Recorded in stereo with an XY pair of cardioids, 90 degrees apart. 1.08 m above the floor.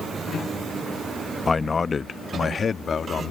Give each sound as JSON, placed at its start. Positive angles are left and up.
{"t": 1.5, "sound": "a man speaking", "azimuth_deg": 30}